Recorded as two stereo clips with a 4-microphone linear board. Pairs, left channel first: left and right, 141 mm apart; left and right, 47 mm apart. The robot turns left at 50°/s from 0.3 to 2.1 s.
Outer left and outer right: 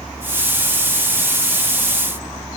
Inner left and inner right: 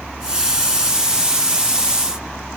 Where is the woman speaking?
I don't hear a woman speaking.